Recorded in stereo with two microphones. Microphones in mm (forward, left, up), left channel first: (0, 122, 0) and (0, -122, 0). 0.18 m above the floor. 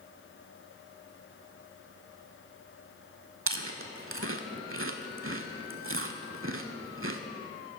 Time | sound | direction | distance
3.5 | chewing | 55° right (ahead or behind) | 0.5 m